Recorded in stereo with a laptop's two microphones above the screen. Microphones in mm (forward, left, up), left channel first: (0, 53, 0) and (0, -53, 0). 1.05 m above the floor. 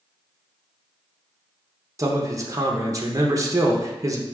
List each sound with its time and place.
2.0 s a man speaking: 30° right (ahead or behind), 0.7 m